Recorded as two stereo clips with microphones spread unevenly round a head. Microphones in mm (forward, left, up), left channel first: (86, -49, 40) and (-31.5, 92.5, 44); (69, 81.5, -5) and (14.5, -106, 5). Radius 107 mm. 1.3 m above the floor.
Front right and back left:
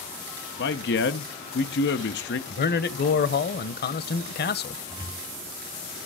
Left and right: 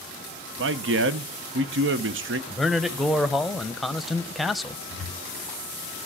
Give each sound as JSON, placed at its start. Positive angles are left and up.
{"t": 0.6, "sound": "a man speaking", "azimuth_deg": -80, "distance_m": 0.9}
{"t": 2.5, "sound": "a man speaking", "azimuth_deg": -15, "distance_m": 0.9}
{"t": 4.9, "sound": "a cupboard door", "azimuth_deg": -165, "distance_m": 3.5}